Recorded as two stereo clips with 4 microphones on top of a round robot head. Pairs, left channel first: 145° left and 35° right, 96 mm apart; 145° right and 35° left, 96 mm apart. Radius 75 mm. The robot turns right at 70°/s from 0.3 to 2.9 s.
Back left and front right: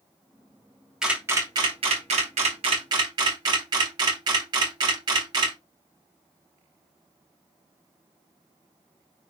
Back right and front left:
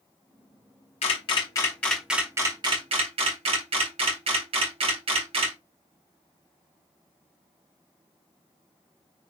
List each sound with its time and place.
1.0 s a camera shutter: 120° right, 1.1 m; by 5.6 s 10° left, 1.1 m